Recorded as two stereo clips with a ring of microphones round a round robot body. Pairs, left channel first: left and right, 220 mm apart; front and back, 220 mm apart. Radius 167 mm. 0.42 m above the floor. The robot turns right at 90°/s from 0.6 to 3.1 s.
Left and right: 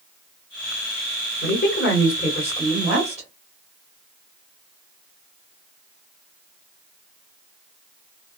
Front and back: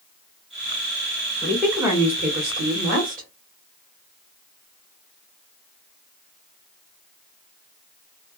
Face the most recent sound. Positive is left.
turn(degrees=-140)